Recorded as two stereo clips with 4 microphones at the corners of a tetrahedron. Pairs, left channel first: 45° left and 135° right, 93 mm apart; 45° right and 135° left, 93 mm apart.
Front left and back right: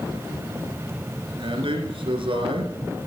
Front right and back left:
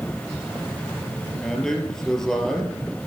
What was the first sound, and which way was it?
A man speaking, 130° right.